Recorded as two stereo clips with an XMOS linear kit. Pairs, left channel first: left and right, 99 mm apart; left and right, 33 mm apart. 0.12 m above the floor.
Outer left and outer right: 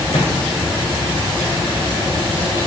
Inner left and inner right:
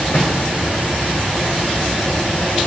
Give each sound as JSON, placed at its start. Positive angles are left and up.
{"t": 0.1, "sound": "a microwave", "side_deg": 70, "distance_m": 8.0}